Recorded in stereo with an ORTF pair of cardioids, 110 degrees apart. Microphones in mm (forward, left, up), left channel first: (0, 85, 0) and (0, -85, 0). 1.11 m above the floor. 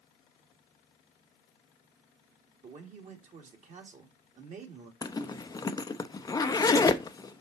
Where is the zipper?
20° left, 0.6 m.